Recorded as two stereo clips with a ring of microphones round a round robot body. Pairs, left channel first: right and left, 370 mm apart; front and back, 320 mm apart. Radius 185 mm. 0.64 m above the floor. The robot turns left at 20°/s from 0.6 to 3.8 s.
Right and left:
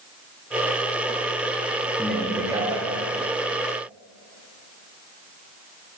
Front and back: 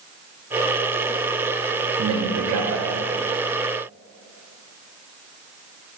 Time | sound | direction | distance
2.0 | a man speaking | straight behind | 0.9 m